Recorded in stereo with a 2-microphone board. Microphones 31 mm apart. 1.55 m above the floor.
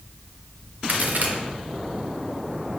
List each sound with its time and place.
0.9 s a crack: 55° right (ahead or behind), 0.9 m